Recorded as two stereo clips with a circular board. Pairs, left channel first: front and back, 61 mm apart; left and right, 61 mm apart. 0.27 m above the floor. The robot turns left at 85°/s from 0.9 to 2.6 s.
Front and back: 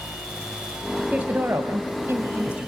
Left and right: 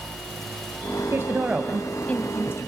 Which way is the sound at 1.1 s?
120° right.